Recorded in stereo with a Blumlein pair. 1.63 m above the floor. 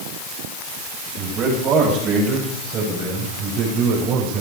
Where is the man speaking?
30° right, 9.5 m; by 4.4 s 35° right, 7.5 m.